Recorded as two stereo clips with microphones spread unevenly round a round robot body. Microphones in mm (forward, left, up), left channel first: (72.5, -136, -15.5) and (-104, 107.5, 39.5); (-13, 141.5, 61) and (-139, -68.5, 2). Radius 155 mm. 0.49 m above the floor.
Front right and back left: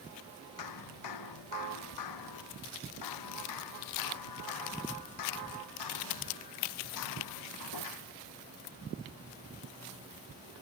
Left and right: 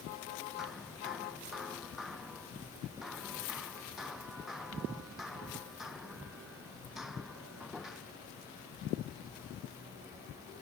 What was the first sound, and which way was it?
Hammering, 30° right.